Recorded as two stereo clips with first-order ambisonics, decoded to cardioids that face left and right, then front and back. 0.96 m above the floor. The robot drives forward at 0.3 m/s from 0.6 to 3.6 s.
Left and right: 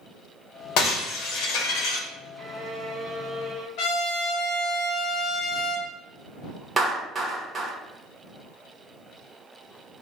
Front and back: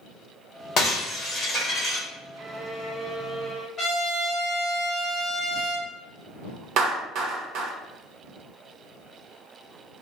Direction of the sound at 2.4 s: 150° right.